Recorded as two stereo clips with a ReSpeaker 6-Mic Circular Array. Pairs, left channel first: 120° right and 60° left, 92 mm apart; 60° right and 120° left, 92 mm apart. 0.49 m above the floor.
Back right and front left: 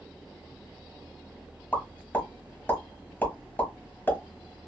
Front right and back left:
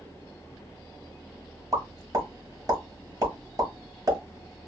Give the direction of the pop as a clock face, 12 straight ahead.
6 o'clock.